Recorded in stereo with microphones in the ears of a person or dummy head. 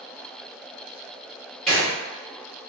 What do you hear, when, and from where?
1.7 s a gunshot: 5° left (ahead or behind), 1.4 m